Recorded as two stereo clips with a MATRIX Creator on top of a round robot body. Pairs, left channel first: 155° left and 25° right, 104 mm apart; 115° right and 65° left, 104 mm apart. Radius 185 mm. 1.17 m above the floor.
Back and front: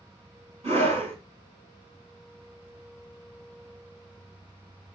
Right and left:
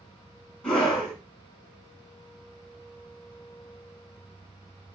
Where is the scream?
30° right, 5.5 m.